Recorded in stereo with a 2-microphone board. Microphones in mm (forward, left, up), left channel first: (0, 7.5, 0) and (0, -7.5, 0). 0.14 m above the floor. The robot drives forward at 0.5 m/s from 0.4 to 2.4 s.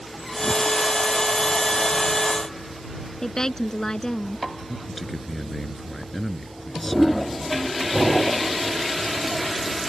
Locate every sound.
3.2 s a woman speaking: 40° left (ahead or behind)
4.7 s a man speaking: 15° left (ahead or behind)